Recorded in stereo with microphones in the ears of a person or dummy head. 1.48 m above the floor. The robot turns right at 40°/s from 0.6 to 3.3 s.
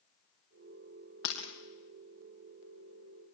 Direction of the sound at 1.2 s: 70° left (ahead or behind).